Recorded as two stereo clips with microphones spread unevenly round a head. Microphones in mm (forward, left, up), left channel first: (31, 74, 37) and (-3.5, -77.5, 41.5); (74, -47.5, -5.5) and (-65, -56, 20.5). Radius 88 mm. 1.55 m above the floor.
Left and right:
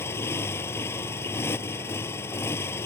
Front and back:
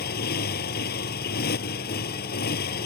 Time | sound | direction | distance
0.0 | a motorcycle | straight ahead | ?